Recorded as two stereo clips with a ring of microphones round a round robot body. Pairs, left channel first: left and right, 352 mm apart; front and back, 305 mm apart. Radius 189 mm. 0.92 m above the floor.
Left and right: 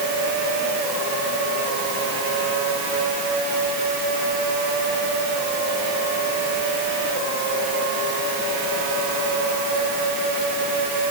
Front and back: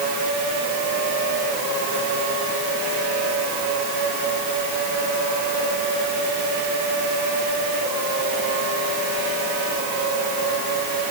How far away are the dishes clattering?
No dishes clattering in this recording.